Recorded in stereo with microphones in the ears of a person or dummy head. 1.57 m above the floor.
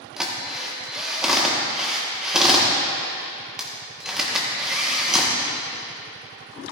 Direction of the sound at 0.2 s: Centre (ahead or behind).